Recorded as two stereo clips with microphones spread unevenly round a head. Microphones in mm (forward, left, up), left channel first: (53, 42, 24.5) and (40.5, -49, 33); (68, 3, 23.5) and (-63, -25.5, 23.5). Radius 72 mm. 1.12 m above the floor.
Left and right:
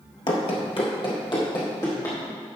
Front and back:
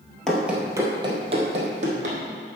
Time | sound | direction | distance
0.3 | running footsteps | 95° left | 1.3 m